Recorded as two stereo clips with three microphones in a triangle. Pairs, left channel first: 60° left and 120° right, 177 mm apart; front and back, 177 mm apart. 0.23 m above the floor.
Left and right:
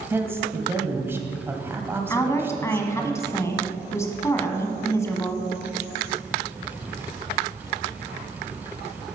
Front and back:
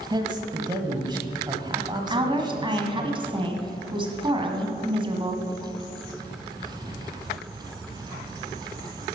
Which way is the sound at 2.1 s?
130° left.